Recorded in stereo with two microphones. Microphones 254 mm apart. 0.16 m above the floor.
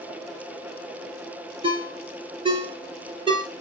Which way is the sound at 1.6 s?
20° right (ahead or behind).